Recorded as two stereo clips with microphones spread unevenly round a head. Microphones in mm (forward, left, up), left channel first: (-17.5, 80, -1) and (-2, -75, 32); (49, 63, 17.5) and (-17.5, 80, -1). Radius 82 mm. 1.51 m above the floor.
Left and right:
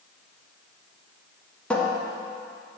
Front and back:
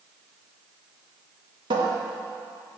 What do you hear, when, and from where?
1.7 s a cupboard door: 175° right, 1.3 m